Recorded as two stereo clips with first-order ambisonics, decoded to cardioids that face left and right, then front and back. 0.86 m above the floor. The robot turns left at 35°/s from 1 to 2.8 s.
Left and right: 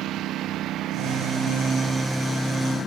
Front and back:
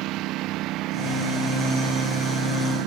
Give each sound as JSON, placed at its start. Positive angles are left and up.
{"t": 0.0, "sound": "a lawn mower", "azimuth_deg": -140}